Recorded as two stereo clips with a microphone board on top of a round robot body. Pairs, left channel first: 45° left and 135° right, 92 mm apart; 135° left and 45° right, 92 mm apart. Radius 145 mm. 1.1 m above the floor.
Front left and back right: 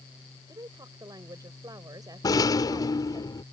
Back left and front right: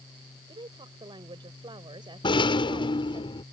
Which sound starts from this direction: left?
A rattle, at 2.2 s.